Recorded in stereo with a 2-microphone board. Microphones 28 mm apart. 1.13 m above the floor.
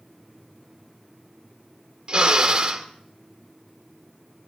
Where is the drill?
35° right (ahead or behind), 1.8 m.